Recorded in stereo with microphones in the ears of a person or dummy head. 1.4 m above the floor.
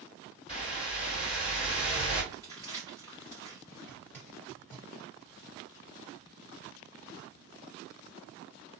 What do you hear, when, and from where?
0.5 s a whoosh: 30° left (ahead or behind), 1.3 m
2.3 s crumpling: 15° left (ahead or behind), 1.2 m
3.7 s a zipper: 10° left (ahead or behind), 1.2 m